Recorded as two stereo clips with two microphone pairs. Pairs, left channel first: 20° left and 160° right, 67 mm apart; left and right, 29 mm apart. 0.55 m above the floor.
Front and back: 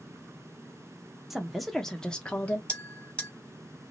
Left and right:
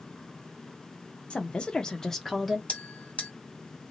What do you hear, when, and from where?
1.3 s a woman speaking: 110° left, 1.1 m; by 2.6 s 10° right, 0.9 m
2.7 s a bell: 85° left, 1.9 m